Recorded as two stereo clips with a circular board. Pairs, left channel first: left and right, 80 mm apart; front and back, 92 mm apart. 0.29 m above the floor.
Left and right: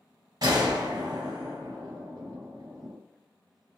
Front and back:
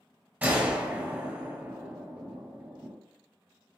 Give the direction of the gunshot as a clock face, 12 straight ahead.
4 o'clock.